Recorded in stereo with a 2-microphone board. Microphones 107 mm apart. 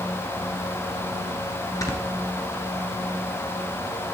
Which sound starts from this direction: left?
Snoring, at 1.8 s.